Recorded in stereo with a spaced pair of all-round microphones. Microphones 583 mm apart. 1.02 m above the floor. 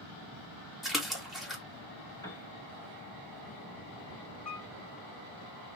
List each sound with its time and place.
0.8 s a splash: centre (ahead or behind), 1.8 m
2.2 s a piano: 5° left (ahead or behind), 2 m
4.5 s a piano: 10° left (ahead or behind), 2.5 m